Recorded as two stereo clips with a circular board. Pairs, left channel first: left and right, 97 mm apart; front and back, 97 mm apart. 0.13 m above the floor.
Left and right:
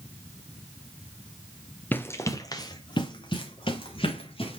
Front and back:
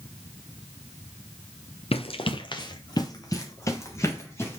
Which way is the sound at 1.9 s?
15° left.